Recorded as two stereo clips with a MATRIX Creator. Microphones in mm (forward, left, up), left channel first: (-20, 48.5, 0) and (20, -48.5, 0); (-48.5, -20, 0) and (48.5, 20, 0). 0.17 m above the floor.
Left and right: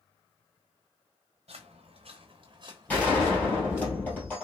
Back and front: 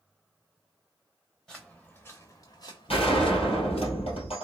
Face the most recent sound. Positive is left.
turn(degrees=-170)